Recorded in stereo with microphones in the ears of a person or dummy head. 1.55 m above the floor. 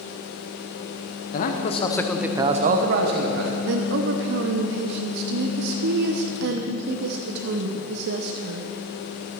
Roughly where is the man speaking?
Left.